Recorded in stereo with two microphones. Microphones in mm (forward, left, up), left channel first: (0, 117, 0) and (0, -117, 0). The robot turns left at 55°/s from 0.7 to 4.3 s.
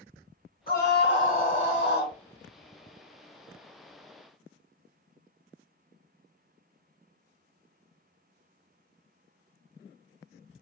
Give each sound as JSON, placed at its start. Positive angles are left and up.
{"t": 0.7, "sound": "a scream", "azimuth_deg": 130, "distance_m": 2.5}